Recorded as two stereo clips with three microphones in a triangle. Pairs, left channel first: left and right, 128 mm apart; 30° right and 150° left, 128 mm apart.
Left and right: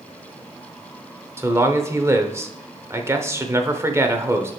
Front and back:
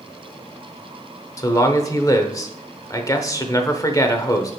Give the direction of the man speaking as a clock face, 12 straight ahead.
2 o'clock.